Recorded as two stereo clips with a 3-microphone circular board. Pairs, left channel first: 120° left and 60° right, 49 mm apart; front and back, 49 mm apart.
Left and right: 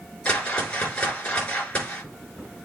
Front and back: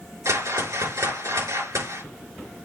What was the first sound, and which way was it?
A whoosh, 175° right.